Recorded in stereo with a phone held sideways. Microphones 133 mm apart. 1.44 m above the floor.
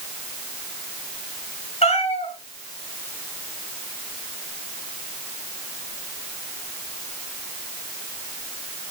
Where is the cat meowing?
55° left (ahead or behind), 4.5 m.